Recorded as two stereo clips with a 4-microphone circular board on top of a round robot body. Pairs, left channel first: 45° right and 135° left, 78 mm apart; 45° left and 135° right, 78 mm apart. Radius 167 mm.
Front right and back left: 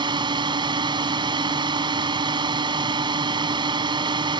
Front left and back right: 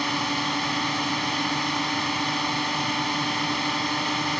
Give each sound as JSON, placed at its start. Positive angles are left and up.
{"t": 0.0, "sound": "a drone", "azimuth_deg": 135}